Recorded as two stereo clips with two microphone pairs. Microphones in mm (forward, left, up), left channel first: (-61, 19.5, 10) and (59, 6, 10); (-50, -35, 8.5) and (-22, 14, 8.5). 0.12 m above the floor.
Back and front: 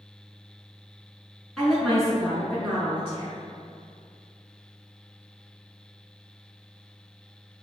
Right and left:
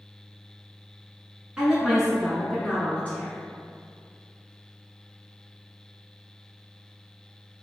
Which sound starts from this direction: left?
A woman speaking, at 1.6 s.